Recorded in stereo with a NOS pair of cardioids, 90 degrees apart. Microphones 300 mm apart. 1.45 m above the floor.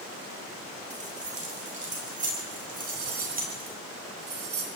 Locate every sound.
0.9 s keys jangling: 25° right, 8 m; by 3.7 s 30° right, 10 m
2.7 s cutlery clinking: 50° right, 5 m